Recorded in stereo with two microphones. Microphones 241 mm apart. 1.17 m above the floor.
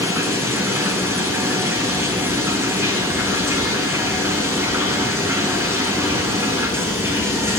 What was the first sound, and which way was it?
Running water, 10° right (ahead or behind).